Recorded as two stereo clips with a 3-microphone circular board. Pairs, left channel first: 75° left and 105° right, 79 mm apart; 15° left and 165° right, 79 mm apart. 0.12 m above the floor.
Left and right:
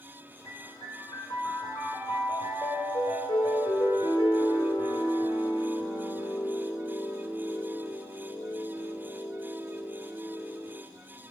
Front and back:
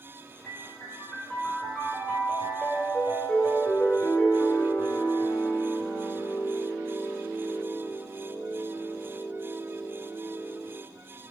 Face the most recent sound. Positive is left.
turn(degrees=95)